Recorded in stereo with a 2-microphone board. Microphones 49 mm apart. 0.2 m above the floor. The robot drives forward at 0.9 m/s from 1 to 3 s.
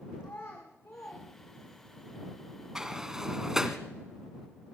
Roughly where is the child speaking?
Left.